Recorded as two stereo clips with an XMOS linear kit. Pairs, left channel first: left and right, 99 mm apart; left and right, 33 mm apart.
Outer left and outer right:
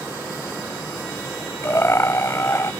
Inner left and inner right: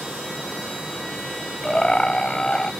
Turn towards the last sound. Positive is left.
turn(degrees=30)  # may be behind; listen again after turning